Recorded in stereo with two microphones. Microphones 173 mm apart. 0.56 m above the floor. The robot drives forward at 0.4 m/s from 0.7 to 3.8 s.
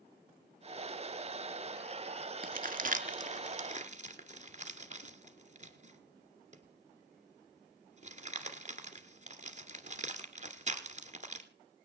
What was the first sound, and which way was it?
Crumpling, 55° right (ahead or behind).